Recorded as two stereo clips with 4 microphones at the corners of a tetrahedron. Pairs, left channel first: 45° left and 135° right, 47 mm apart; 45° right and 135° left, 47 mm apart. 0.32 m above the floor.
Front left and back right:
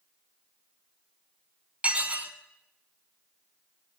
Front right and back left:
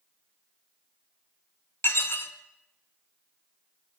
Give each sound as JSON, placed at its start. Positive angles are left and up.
{"t": 1.8, "sound": "dishes clattering", "azimuth_deg": -75, "distance_m": 2.0}